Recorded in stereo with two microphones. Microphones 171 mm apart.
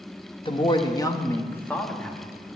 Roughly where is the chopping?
I don't hear chopping.